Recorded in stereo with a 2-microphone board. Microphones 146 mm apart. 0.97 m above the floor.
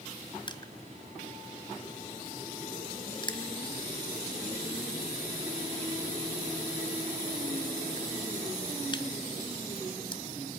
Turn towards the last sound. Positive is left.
turn(degrees=30)  # may be behind; listen again after turning